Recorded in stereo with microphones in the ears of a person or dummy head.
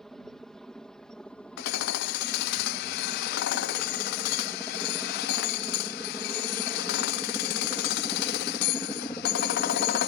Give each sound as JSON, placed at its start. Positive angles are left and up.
{"t": 0.0, "sound": "a helicopter", "side_deg": 0}
{"t": 1.6, "sound": "hammering", "side_deg": 60}